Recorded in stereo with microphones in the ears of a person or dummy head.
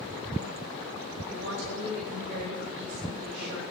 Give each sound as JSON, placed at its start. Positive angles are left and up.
{"t": 1.2, "sound": "a woman speaking", "side_deg": -55, "distance_m": 6.0}